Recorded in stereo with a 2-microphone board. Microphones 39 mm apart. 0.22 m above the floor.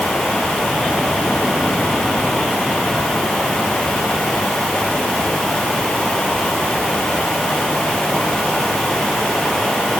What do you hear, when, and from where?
Only background noise.